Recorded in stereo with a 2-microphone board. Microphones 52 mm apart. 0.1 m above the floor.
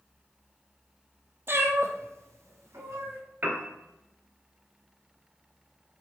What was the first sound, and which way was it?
A cat meowing, 45° right (ahead or behind).